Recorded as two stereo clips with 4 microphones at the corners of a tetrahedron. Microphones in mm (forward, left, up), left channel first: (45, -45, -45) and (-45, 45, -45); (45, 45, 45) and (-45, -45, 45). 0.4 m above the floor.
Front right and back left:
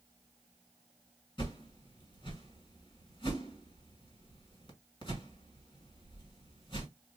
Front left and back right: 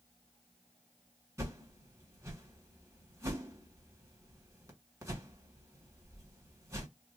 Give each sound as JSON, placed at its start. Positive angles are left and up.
{"t": 1.4, "sound": "a whoosh", "azimuth_deg": -80, "distance_m": 1.7}